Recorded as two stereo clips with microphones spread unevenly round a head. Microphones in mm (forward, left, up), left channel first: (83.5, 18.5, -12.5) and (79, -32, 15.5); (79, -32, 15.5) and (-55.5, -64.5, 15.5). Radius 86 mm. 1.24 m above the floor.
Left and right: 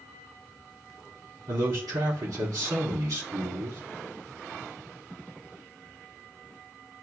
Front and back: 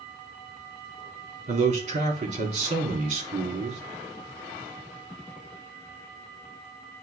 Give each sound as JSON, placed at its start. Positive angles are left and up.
{"t": 1.5, "sound": "a man speaking", "azimuth_deg": -125, "distance_m": 3.0}